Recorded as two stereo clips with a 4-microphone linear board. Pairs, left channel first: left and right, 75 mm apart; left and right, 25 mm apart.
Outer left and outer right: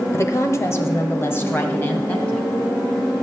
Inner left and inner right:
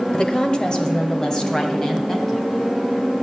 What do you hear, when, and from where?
0.1 s a woman speaking: 40° left (ahead or behind), 1.3 m; by 2.5 s 20° left (ahead or behind), 2 m